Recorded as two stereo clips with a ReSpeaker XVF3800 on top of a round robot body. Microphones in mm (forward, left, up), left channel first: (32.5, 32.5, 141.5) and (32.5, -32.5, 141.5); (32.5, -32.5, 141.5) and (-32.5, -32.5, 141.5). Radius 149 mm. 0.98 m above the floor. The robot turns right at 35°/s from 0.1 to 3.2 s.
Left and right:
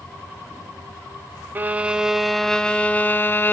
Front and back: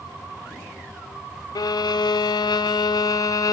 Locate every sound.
1.6 s a violin: 25° right, 0.6 m; by 3.5 s 30° left, 0.6 m